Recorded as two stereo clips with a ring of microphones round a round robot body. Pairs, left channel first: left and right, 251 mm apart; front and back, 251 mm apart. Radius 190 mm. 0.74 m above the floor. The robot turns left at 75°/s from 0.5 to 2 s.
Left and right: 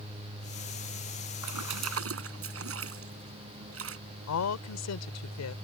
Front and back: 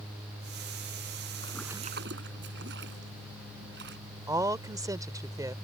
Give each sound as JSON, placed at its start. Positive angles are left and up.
{"t": 1.4, "sound": "a splash", "azimuth_deg": -75}
{"t": 4.3, "sound": "a woman speaking", "azimuth_deg": 105}